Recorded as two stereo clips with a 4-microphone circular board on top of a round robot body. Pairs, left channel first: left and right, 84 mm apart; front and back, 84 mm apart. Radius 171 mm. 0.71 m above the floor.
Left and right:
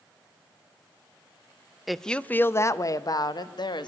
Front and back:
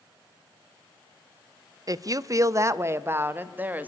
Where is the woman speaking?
175° right, 0.8 m; by 3.9 s 110° left, 1.4 m.